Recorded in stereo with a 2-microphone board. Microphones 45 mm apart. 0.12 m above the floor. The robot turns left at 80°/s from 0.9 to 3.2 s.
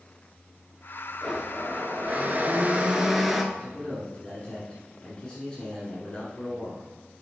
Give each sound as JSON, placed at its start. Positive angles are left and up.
{"t": 1.2, "sound": "a blender", "azimuth_deg": -15, "distance_m": 0.8}
{"t": 3.5, "sound": "a man speaking", "side_deg": 20, "distance_m": 1.7}